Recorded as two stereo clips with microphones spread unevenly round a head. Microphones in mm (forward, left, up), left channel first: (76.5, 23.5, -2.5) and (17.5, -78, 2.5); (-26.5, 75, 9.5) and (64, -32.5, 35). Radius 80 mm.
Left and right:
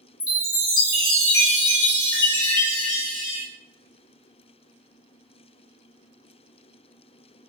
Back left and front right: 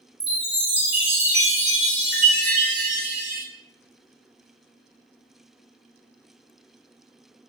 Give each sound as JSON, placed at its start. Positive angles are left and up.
{"t": 0.2, "sound": "a chime", "azimuth_deg": 20, "distance_m": 1.3}